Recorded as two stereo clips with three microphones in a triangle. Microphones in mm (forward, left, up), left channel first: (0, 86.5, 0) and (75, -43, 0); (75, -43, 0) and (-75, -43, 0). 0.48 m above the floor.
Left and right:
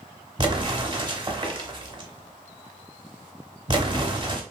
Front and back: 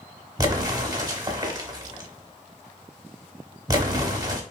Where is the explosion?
115° right, 0.7 m.